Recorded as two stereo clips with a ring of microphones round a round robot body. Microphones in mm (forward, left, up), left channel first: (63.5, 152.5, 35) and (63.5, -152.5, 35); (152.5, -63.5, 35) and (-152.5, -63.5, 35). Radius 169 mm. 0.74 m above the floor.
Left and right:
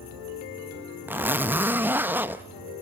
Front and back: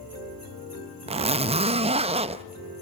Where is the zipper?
160° right, 0.6 m.